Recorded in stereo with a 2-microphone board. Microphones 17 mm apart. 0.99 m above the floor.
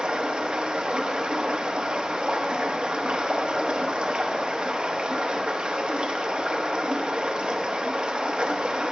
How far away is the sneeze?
No sneeze in this recording.